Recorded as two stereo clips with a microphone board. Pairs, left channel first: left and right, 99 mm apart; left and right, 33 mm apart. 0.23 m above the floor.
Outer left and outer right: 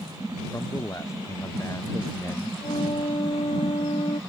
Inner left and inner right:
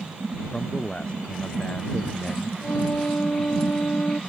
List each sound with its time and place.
0.5 s a man speaking: 30° left (ahead or behind)
2.6 s a flute: 75° left (ahead or behind)